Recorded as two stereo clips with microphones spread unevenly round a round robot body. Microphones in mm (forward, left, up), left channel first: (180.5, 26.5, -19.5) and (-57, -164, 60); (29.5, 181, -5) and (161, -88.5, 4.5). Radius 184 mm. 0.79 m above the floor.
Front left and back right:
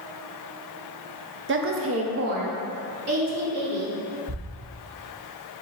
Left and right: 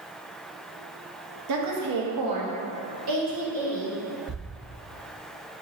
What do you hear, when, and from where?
1.5 s a woman speaking: 80° right, 0.6 m; by 4.0 s 100° right, 2 m
4.3 s a thud: 110° right, 1.1 m